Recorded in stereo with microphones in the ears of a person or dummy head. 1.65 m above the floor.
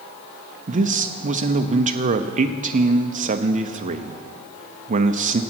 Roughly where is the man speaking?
Right.